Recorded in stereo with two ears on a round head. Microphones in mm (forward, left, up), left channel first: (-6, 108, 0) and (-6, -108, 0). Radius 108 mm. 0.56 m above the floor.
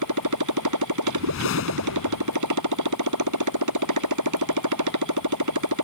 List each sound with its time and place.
0.0 s a motorcycle: 85° right
1.1 s a whoosh: 60° left (ahead or behind)